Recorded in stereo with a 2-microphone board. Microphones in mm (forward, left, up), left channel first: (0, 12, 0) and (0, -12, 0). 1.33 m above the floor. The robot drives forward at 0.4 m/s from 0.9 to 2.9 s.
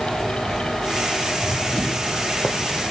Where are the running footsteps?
40° left (ahead or behind), 3 m; by 2.8 s 70° left (ahead or behind), 4 m.